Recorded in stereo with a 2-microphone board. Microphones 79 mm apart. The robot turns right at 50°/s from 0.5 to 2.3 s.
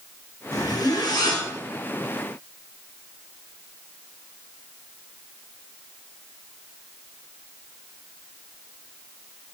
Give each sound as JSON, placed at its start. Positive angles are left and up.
{"t": 0.5, "sound": "a zipper", "azimuth_deg": 60, "distance_m": 0.9}